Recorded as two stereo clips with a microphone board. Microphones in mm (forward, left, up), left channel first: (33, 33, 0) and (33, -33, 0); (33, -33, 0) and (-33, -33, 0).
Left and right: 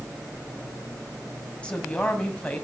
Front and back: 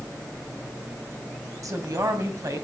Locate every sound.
1.6 s a woman speaking: 160° left, 2 m